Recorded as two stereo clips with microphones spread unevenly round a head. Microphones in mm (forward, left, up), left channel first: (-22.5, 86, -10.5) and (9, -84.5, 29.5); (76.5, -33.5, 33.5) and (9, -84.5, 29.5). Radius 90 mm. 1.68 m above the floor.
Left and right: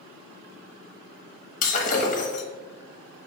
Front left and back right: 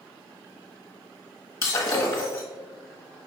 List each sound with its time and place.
1.6 s breaking glass: 70° left, 1.1 m